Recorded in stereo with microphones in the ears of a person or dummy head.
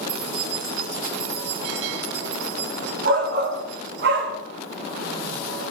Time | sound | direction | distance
0.1 | keys jangling | 70° right (ahead or behind) | 3 m
3.0 | a shout | 60° right (ahead or behind) | 2 m